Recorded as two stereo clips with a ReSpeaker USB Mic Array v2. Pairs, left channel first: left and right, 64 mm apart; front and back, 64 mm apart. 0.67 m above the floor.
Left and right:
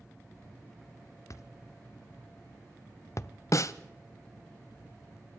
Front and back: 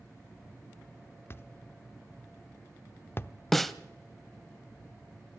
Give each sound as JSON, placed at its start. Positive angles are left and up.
{"t": 1.3, "sound": "a thud", "azimuth_deg": 55, "distance_m": 0.5}
{"t": 3.5, "sound": "a snare drum", "azimuth_deg": 85, "distance_m": 0.6}